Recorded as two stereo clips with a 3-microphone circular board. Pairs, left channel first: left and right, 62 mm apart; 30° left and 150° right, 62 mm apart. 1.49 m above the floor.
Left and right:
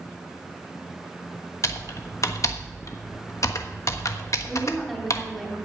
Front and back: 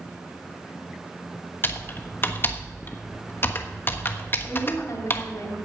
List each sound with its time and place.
1.6 s typing on a keyboard: 75° left, 1.2 m
4.5 s a woman speaking: straight ahead, 3.5 m